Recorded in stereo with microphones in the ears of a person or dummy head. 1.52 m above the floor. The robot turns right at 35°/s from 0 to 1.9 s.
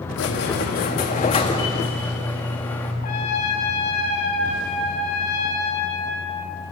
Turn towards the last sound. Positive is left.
turn(degrees=45)  # may be behind; listen again after turning